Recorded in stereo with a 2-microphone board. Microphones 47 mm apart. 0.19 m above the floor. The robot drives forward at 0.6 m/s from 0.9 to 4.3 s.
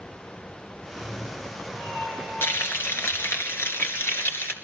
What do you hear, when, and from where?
0.8 s a cat meowing: 15° left (ahead or behind), 6.5 m; by 3.4 s 10° left (ahead or behind), 8 m
2.4 s frying: 65° left (ahead or behind), 2.5 m; by 4.5 s 60° left (ahead or behind), 2.5 m